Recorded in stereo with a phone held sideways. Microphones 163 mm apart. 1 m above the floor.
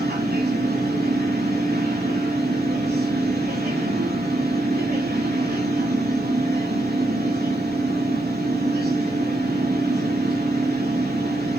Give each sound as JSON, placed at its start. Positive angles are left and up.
{"t": 0.0, "sound": "a machine running", "side_deg": -75, "distance_m": 7.0}